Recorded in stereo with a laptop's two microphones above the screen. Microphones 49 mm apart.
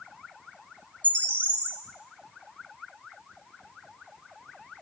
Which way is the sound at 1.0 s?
25° left (ahead or behind).